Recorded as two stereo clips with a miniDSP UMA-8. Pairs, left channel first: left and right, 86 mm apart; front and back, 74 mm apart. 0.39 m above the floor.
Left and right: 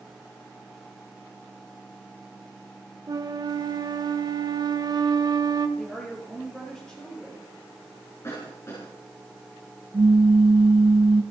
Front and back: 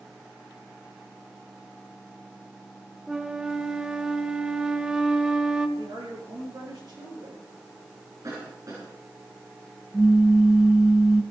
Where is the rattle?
I don't hear a rattle.